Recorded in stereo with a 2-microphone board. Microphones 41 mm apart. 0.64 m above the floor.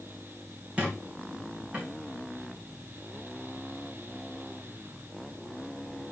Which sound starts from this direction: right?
A squeak, at 0.8 s.